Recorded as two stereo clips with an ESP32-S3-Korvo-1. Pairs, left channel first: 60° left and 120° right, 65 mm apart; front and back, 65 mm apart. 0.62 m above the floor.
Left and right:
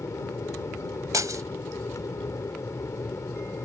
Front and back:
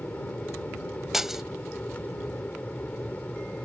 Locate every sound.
0.0 s an aircraft: 60° left
1.1 s breaking glass: 95° right